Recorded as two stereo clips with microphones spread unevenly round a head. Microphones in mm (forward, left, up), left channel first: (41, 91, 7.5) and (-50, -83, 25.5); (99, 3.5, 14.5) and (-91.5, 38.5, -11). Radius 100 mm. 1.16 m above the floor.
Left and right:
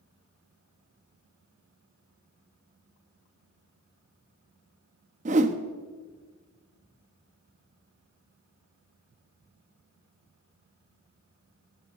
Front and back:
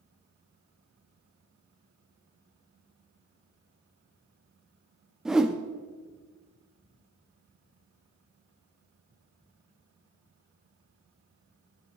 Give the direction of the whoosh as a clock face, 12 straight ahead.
3 o'clock.